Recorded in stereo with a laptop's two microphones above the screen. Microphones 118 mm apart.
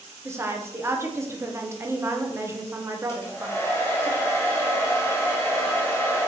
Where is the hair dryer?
20° left (ahead or behind), 0.7 m.